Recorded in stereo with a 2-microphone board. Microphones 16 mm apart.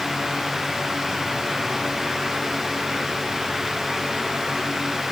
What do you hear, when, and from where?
Only background noise.